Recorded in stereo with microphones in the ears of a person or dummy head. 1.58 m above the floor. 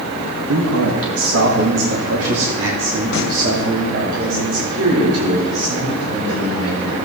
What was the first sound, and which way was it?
A man speaking, 75° right (ahead or behind).